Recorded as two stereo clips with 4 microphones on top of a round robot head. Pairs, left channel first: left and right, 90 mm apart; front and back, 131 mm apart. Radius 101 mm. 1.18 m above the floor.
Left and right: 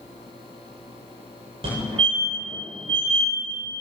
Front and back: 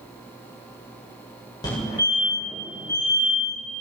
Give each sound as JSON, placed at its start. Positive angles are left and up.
{"t": 1.6, "sound": "a fire alarm", "azimuth_deg": -65, "distance_m": 8.0}